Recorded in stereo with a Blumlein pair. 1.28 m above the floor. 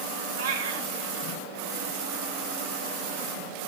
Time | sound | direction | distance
0.4 | a cat meowing | 65° right | 3.5 m